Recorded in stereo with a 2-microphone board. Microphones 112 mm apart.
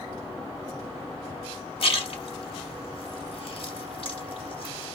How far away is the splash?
About 0.8 m.